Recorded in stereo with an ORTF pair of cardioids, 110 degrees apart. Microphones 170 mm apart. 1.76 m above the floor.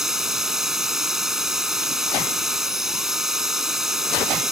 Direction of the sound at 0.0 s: Straight ahead.